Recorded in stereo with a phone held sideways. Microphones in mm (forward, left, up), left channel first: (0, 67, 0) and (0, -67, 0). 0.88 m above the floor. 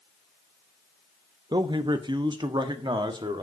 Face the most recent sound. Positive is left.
turn(degrees=-35)  # may be behind; listen again after turning